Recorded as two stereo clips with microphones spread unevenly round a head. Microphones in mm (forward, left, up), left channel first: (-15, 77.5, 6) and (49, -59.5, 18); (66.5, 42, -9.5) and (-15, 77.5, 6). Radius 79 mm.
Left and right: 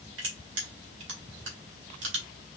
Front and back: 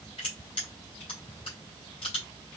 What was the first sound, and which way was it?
Crushing, 80° right.